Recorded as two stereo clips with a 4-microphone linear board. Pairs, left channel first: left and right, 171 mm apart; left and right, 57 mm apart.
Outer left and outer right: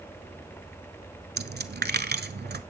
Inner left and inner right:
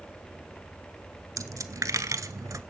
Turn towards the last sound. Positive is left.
turn(degrees=-75)  # may be behind; listen again after turning